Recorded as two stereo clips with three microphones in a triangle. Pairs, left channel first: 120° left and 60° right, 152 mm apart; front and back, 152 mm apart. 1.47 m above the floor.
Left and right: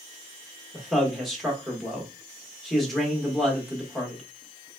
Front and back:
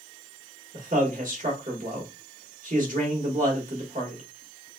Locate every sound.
0.7 s a man speaking: 150° right, 1.4 m